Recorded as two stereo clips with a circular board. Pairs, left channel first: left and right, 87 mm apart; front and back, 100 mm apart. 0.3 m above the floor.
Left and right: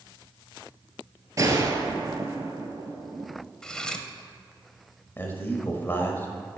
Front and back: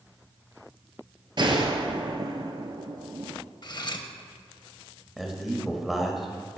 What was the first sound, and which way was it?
A gunshot, 140° right.